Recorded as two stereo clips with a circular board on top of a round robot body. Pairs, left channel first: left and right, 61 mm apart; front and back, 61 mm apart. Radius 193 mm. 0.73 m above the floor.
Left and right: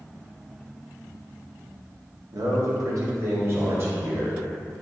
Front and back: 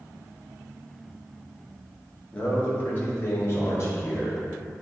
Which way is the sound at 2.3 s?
70° right.